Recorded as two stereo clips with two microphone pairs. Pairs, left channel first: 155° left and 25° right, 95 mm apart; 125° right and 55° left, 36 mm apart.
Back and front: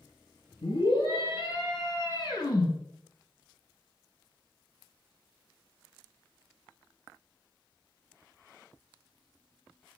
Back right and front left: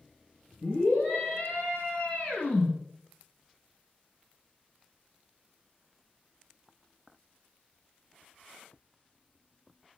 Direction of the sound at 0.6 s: 175° right.